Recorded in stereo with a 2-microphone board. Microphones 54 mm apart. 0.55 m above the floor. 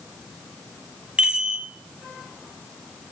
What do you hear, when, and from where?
1.2 s a chime: 20° right (ahead or behind), 1.5 m